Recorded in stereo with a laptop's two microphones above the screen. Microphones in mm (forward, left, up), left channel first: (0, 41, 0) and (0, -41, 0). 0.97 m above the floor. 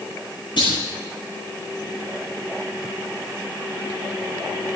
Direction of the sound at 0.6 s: 80° left.